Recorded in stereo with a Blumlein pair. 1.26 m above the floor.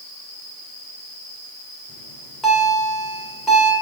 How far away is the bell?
About 2 m.